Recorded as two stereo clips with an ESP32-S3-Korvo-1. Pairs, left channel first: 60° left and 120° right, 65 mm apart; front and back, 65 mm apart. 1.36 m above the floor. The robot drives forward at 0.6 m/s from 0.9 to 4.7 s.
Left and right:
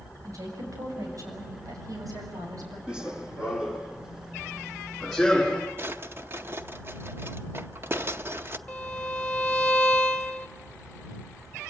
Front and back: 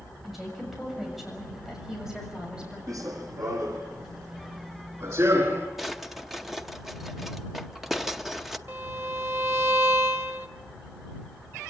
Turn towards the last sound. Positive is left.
turn(degrees=135)